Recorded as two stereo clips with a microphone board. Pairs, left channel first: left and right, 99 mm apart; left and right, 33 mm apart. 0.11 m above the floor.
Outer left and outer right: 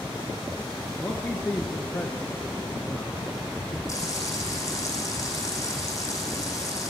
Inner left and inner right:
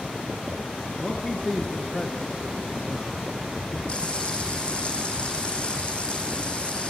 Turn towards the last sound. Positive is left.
turn(degrees=30)  # may be behind; listen again after turning